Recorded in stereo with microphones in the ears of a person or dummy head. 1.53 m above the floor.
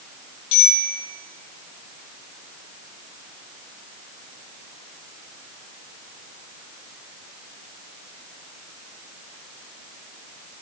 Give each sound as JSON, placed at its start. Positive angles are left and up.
{"t": 0.5, "sound": "a bicycle bell", "side_deg": 35, "distance_m": 7.5}